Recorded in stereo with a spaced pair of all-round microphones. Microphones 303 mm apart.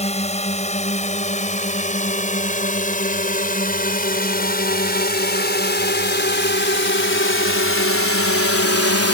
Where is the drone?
20° left (ahead or behind); by 9.1 s 50° left (ahead or behind).